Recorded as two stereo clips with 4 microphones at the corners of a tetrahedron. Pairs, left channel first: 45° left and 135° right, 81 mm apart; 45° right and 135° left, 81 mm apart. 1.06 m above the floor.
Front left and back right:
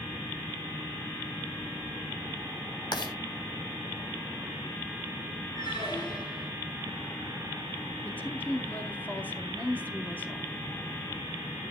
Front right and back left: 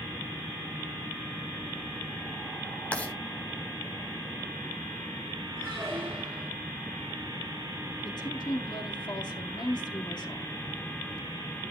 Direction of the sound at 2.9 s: 25° left.